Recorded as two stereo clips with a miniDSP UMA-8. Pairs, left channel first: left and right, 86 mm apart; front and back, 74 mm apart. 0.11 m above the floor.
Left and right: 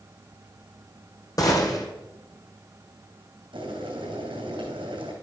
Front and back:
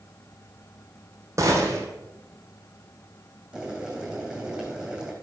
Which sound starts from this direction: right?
Boiling, at 3.5 s.